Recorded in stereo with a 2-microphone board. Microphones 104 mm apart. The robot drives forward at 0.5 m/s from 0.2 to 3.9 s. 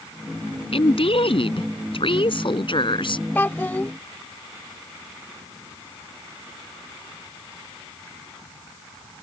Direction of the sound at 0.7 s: 65° left (ahead or behind).